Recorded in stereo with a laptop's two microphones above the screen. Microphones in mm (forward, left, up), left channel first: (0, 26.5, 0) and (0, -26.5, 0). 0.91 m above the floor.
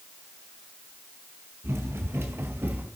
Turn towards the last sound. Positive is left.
turn(degrees=-40)  # may be behind; listen again after turning